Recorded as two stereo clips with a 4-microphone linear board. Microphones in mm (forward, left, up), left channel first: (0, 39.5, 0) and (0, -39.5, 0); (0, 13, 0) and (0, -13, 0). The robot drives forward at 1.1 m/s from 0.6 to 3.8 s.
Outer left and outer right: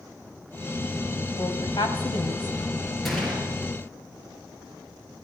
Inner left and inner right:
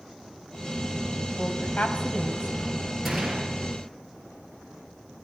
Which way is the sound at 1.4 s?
70° left (ahead or behind).